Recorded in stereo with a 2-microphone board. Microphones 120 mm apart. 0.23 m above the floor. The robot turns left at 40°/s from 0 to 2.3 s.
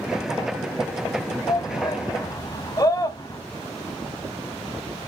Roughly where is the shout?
Left.